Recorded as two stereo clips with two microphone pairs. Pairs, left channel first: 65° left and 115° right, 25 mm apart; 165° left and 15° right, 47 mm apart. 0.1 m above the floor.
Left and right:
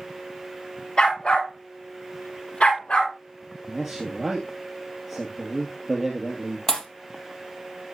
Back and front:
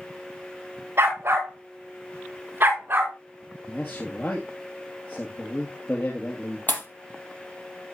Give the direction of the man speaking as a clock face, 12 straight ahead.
7 o'clock.